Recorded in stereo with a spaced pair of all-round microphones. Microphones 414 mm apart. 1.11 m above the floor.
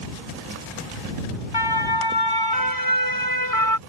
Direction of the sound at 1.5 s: 65° left (ahead or behind).